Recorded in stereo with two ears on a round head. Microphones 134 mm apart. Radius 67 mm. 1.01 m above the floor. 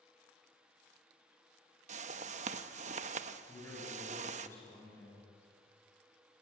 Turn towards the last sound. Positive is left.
turn(degrees=15)  # may be behind; listen again after turning